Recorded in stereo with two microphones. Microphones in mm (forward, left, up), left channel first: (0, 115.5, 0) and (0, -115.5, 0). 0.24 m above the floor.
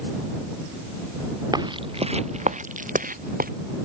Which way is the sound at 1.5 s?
15° right (ahead or behind).